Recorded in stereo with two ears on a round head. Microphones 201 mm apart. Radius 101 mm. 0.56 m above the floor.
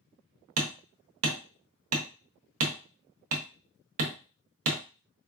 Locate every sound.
0.6 s hammering: 65° right (ahead or behind), 0.7 m